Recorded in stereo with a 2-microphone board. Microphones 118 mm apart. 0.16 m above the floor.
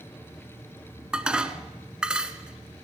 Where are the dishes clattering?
5° right (ahead or behind), 1.2 m.